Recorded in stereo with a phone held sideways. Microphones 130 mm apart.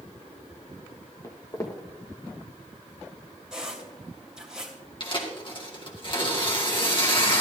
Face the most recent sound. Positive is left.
turn(degrees=40)  # may be behind; listen again after turning